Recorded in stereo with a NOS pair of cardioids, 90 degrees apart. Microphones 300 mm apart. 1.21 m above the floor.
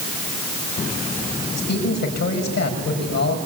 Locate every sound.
1.6 s a man speaking: 60° left, 7 m